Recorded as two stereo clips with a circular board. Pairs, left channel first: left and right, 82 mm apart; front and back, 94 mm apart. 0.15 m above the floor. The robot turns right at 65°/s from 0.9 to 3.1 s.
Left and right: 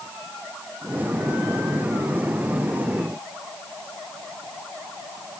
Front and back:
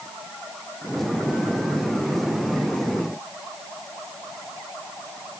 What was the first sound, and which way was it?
Only background noise.